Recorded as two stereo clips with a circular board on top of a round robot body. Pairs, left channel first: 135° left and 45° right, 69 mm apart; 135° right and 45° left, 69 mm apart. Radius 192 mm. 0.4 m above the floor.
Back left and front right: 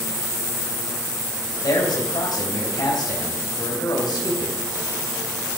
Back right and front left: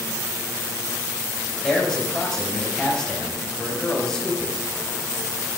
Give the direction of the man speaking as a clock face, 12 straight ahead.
7 o'clock.